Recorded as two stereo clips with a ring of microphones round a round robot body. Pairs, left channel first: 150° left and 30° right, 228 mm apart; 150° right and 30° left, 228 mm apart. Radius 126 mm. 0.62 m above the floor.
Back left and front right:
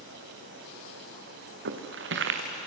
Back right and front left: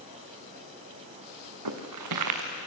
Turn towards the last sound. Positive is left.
turn(degrees=15)